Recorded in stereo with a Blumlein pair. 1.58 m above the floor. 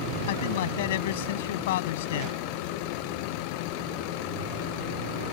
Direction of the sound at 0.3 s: 55° left.